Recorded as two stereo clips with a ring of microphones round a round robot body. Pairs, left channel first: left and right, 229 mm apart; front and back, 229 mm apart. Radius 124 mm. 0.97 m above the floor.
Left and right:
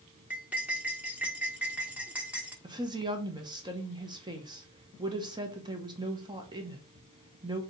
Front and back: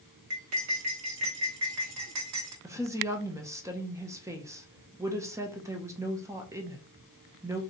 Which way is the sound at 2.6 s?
125° right.